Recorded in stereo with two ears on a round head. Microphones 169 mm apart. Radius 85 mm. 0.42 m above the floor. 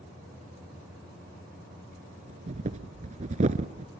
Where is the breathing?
40° right (ahead or behind), 0.9 m.